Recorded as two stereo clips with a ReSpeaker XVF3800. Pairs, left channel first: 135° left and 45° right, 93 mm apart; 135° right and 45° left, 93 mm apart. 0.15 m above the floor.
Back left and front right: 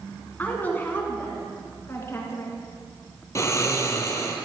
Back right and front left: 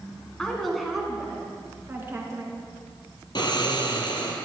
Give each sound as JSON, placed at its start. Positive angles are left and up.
{"t": 0.4, "sound": "a woman speaking", "azimuth_deg": 160, "distance_m": 1.4}
{"t": 3.4, "sound": "snoring", "azimuth_deg": -170, "distance_m": 1.2}